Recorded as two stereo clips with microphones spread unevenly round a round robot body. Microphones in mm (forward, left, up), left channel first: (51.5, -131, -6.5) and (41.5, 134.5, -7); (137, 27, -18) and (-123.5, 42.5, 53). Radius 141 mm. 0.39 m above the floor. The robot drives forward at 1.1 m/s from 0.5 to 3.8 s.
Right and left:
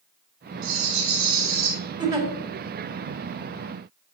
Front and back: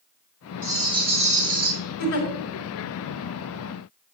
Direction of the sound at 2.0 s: 20° left.